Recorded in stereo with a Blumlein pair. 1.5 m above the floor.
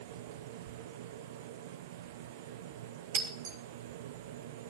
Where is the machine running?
55° right, 1.0 m.